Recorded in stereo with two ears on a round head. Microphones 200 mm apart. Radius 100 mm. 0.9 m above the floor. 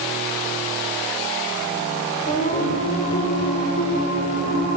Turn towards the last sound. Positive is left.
turn(degrees=30)  # may be behind; listen again after turning